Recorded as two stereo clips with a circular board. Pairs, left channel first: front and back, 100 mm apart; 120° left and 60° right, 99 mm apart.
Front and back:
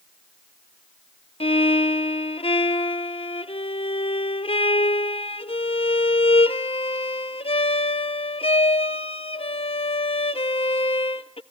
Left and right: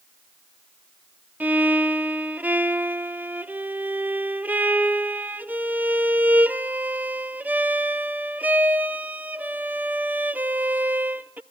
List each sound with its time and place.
1.4 s a violin: 15° left, 0.5 m